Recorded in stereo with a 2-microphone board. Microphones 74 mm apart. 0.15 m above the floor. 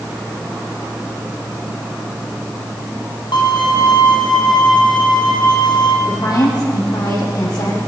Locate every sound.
3.3 s a violin: 75° left (ahead or behind), 3.5 m
6.1 s a woman speaking: 60° left (ahead or behind), 7.5 m